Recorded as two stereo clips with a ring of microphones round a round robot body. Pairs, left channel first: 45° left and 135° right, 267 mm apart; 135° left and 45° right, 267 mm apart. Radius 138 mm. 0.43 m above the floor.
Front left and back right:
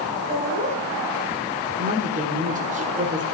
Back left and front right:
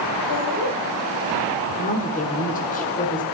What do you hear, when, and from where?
0.3 s laughter: 160° left, 2.5 m
1.8 s a woman speaking: straight behind, 1.6 m